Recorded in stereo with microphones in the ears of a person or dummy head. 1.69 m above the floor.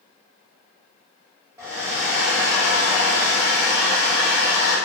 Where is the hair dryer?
20° right (ahead or behind), 1.0 m.